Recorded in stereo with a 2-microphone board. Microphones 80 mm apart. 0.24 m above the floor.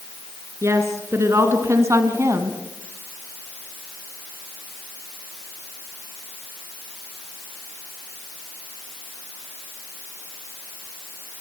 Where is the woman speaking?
35° right (ahead or behind), 3.5 m; by 2.6 s 40° right (ahead or behind), 2 m.